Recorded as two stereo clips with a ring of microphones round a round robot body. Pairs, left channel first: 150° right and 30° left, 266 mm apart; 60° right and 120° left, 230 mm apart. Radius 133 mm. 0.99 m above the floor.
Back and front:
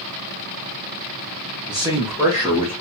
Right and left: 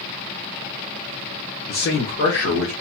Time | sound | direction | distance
1.7 | a man speaking | 35° right | 0.9 m